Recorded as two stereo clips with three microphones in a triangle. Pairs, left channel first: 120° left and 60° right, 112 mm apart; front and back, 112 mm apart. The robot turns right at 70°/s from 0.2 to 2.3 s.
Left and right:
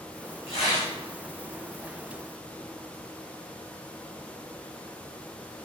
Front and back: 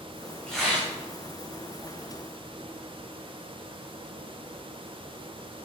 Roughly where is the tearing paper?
Left.